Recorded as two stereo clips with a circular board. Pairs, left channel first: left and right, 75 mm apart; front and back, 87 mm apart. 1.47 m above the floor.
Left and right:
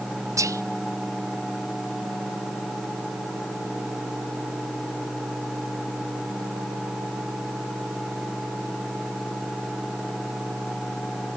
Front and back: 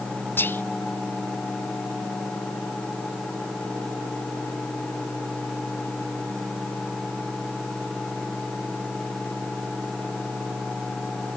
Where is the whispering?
60° right, 0.5 m.